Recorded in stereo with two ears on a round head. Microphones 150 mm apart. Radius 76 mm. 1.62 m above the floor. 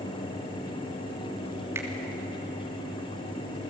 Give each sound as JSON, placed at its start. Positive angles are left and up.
{"t": 1.8, "sound": "a finger snap", "side_deg": -15, "distance_m": 3.0}